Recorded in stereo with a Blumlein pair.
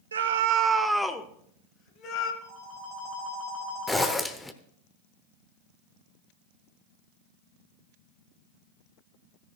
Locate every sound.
0.1 s a scream: 70° right, 1.0 m; by 2.3 s 40° left, 2 m
2.4 s a phone ringing: 35° right, 3 m
3.9 s a zipper: 5° left, 0.9 m